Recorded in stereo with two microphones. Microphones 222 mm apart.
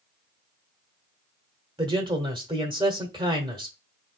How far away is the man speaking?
About 1.2 m.